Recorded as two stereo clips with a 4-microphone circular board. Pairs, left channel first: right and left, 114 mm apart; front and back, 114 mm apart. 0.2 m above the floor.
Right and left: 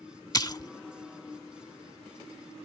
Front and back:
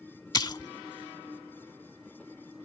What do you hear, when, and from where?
0.3 s a splash: 45° right